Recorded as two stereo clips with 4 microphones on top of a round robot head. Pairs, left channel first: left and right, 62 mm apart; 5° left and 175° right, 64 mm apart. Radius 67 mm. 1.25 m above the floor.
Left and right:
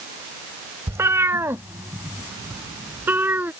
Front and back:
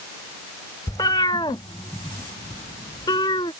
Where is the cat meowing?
45° right; by 3.5 s 30° right.